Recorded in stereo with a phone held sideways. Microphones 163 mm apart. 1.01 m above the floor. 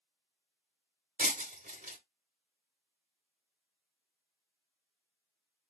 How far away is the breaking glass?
About 1.0 m.